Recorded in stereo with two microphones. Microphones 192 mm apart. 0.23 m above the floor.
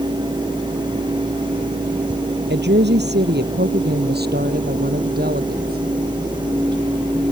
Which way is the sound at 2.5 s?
65° right (ahead or behind).